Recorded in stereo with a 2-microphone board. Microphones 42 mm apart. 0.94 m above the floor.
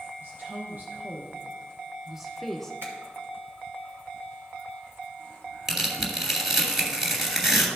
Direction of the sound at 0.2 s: 50° right (ahead or behind).